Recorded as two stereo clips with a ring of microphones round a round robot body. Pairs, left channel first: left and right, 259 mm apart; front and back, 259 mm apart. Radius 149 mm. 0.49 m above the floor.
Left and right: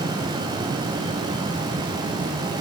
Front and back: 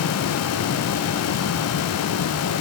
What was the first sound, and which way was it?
Only background noise.